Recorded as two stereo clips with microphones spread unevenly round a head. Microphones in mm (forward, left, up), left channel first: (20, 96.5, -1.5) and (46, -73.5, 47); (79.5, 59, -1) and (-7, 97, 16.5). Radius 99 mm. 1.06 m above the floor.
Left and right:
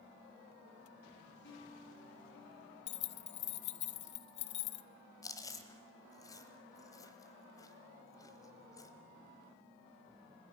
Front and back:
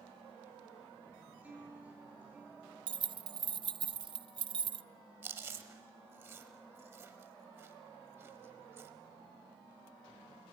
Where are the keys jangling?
115° left, 0.6 m.